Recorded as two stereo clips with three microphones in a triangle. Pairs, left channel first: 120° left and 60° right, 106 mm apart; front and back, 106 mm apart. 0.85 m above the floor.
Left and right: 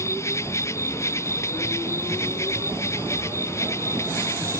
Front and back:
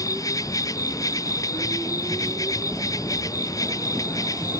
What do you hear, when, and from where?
0.0 s an insect: 55° left